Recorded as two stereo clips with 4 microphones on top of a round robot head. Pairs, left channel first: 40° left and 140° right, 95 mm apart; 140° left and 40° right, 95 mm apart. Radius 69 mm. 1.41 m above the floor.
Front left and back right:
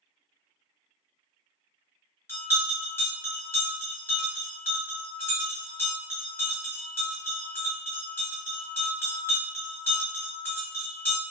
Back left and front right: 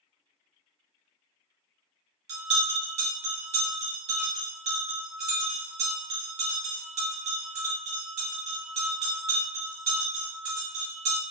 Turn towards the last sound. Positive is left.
turn(degrees=-30)